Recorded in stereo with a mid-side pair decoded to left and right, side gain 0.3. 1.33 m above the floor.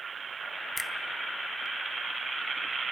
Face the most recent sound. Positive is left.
turn(degrees=35)